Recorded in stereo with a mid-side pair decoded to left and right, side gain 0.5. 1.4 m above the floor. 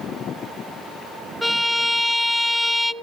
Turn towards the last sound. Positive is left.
turn(degrees=10)